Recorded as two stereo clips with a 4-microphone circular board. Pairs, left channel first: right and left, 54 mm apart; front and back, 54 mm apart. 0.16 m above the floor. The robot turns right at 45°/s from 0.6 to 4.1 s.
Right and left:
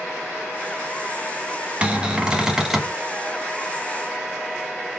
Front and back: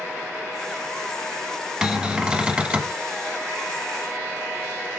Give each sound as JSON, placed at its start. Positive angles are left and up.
{"t": 1.8, "sound": "a cupboard door", "azimuth_deg": 115, "distance_m": 0.6}